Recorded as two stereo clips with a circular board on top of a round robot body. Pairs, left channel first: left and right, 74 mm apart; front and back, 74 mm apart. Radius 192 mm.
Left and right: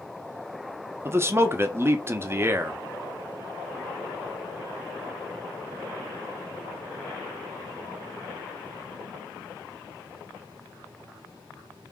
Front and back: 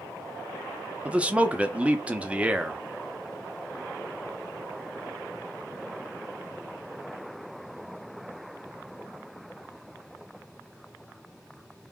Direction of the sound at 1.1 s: 120° right.